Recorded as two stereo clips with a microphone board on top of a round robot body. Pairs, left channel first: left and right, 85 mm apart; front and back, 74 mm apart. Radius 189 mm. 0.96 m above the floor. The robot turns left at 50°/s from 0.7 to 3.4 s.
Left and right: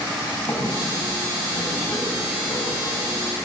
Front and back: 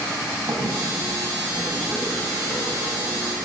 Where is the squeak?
145° left, 5 m; by 3.1 s 25° left, 5 m.